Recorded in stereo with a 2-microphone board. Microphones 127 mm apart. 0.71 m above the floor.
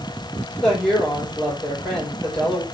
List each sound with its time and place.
0.6 s a woman speaking: 5° left (ahead or behind), 3 m